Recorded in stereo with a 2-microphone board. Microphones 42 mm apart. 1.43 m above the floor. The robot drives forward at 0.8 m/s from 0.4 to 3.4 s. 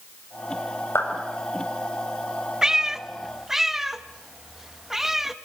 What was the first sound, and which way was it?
A clap, 80° left.